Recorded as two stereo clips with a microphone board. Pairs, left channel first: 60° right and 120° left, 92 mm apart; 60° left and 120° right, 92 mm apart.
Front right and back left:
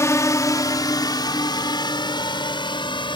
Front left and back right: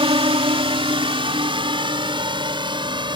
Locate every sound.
0.0 s a drone: 115° right; by 3.2 s 90° right